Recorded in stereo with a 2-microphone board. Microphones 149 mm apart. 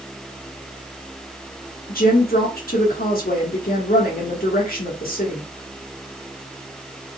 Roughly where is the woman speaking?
Left.